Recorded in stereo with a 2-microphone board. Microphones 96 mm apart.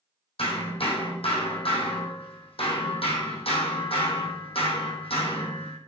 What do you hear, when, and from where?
0.4 s hammering: 80° left, 2.5 m